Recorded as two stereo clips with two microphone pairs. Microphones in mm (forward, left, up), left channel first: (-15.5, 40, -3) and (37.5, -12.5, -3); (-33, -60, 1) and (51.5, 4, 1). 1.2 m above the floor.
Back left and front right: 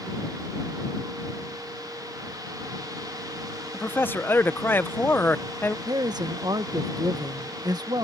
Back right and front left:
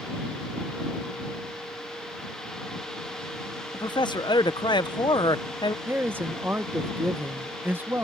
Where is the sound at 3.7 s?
170° right.